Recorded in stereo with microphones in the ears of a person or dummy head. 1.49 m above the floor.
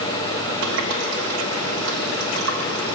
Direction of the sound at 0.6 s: 70° right (ahead or behind).